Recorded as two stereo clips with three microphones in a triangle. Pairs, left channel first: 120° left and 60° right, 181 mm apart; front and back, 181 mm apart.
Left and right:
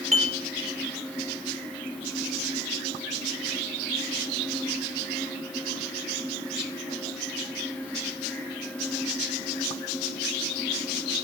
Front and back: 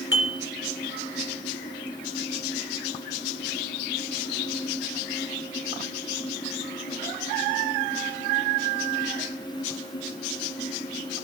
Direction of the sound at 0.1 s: 5° right.